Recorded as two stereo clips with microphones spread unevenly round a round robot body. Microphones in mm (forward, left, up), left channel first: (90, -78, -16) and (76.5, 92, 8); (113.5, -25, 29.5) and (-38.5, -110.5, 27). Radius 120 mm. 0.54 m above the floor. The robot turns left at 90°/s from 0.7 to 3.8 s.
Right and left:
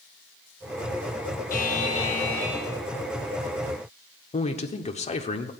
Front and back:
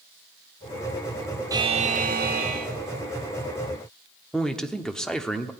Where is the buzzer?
85° right, 1.6 m; by 2.7 s 165° left, 1.6 m.